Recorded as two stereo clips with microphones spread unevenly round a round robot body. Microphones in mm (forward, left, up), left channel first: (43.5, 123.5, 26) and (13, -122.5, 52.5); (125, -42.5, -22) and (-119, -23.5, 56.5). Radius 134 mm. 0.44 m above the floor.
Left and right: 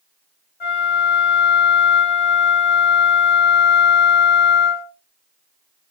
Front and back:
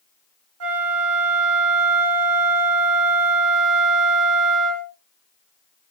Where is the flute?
140° left, 1.3 m.